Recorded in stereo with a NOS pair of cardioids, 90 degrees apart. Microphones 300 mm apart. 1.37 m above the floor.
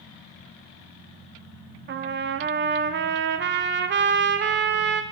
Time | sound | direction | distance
1.9 | a trumpet | 35° right | 0.6 m